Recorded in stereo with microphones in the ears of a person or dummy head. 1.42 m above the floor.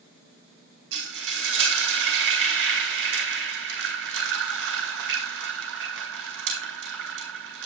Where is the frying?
65° right (ahead or behind), 2 m.